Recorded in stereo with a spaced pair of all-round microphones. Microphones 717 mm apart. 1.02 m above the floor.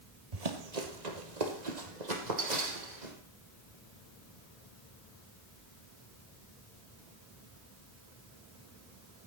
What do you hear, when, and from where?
0.3 s running footsteps: 60° right (ahead or behind), 1.8 m; by 3.1 s 75° right (ahead or behind), 3 m